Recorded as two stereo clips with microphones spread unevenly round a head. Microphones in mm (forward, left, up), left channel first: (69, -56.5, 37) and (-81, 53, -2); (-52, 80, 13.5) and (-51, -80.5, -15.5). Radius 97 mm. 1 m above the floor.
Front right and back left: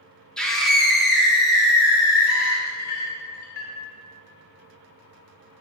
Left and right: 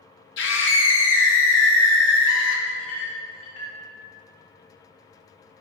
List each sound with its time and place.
0.4 s a scream: 55° left, 1.0 m; by 2.6 s 60° left, 2.5 m
2.7 s a clink: 5° left, 1.5 m